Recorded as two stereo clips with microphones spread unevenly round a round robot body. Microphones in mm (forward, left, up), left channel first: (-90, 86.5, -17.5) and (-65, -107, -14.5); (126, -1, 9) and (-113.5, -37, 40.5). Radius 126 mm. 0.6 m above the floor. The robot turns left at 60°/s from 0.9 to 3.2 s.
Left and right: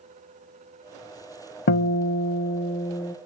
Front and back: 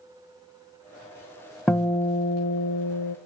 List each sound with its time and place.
1.7 s a guitar: 100° left, 0.6 m; by 3.2 s 15° left, 0.6 m